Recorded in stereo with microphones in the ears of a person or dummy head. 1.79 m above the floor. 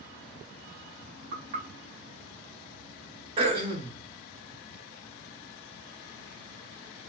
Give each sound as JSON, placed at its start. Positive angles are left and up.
{"t": 1.3, "sound": "knocking", "side_deg": -50, "distance_m": 0.9}
{"t": 3.4, "sound": "throat clearing", "side_deg": -35, "distance_m": 0.9}